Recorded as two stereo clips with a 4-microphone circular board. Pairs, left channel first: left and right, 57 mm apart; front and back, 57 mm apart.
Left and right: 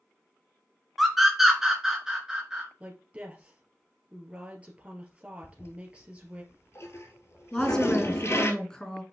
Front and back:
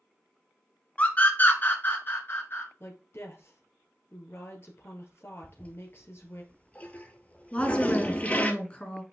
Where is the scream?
5° right, 1.4 m; by 2.7 s 20° right, 1.9 m.